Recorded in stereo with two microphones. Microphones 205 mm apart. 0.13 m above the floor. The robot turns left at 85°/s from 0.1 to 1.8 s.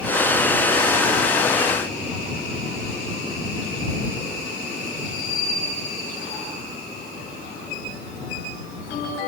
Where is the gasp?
I don't hear a gasp.